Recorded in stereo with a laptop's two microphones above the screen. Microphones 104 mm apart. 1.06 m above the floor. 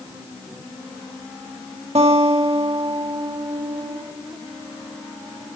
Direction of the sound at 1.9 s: 75° right (ahead or behind).